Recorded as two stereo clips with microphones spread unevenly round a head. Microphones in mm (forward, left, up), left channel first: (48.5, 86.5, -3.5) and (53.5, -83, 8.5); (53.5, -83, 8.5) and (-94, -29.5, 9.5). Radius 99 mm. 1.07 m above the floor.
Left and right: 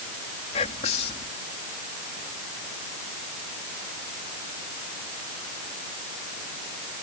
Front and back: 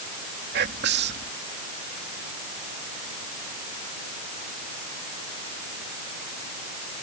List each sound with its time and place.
0.5 s whispering: 150° left